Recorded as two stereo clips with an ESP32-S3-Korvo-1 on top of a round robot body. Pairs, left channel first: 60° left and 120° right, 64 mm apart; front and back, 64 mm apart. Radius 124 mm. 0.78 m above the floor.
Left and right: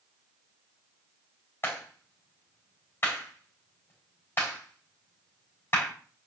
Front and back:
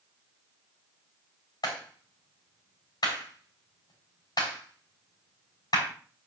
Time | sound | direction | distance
1.6 | a clap | straight ahead | 6 m